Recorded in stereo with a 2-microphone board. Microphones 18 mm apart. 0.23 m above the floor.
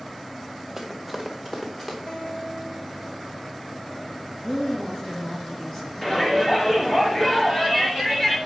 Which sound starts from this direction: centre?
Running footsteps, at 0.8 s.